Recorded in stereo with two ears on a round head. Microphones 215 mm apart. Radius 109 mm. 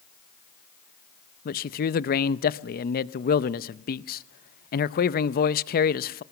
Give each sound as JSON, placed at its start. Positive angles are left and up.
{"t": 1.4, "sound": "a man speaking", "side_deg": 40, "distance_m": 0.6}